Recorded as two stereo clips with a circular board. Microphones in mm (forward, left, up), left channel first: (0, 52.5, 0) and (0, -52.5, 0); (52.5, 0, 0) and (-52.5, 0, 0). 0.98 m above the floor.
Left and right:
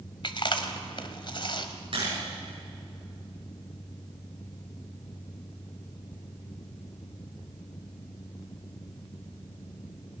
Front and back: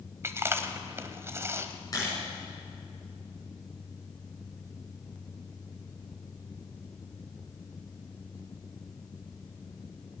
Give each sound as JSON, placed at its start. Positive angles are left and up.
{"t": 0.2, "sound": "chewing", "azimuth_deg": 120, "distance_m": 1.3}
{"t": 1.9, "sound": "a camera shutter", "azimuth_deg": -55, "distance_m": 7.5}